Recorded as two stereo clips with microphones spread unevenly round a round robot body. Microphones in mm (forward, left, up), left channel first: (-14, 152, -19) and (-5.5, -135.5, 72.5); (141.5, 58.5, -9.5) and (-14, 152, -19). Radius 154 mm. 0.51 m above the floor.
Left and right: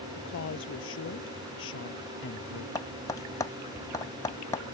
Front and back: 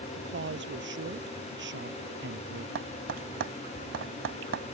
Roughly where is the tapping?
Behind.